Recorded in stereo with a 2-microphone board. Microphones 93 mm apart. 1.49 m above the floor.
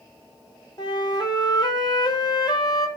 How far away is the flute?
About 1.1 m.